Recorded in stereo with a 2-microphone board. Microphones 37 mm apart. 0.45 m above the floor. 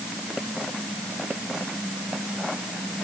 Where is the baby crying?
I don't hear a baby crying.